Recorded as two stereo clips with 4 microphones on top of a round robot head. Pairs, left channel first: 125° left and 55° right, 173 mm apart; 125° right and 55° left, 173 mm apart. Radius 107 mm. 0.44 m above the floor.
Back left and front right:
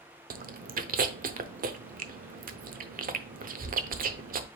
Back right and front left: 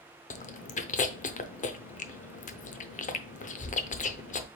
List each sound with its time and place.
0.3 s chewing: 85° right, 0.7 m